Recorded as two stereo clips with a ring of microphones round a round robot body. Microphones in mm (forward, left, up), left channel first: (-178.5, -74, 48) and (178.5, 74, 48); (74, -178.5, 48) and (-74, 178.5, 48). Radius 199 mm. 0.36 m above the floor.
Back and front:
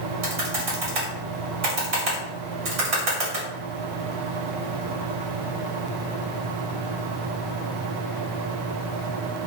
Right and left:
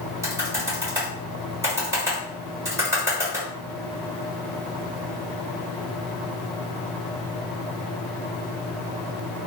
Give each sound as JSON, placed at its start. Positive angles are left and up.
{"t": 0.2, "sound": "typing on a keyboard", "azimuth_deg": 35, "distance_m": 1.4}